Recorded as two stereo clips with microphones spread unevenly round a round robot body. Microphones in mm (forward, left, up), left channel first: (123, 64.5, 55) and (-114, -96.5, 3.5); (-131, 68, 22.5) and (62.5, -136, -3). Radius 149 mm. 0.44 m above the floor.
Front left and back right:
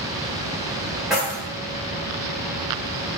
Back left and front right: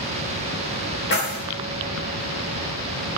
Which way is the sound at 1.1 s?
145° left.